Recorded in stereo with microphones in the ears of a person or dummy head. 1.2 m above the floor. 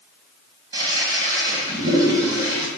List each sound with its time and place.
0.7 s a toilet flushing: 20° right (ahead or behind), 1.1 m